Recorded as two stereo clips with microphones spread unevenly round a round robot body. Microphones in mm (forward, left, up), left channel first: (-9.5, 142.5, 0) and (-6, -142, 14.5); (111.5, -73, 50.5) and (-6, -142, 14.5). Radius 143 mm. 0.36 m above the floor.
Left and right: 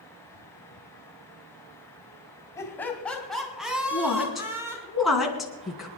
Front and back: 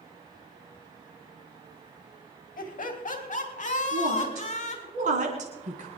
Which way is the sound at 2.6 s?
10° left.